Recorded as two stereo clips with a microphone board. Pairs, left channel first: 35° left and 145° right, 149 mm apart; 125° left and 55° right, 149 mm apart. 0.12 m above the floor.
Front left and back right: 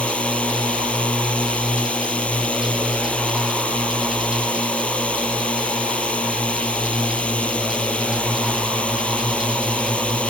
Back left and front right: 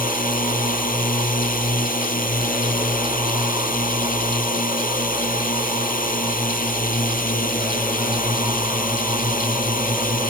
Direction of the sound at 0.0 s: 115° left.